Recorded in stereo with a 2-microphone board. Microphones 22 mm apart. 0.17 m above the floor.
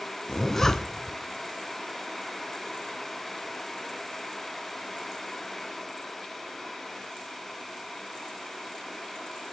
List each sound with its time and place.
0.3 s a zipper: 15° left (ahead or behind), 1.1 m